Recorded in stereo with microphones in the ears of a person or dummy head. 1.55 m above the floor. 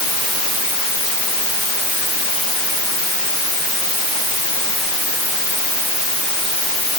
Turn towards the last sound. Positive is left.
No sound to turn to.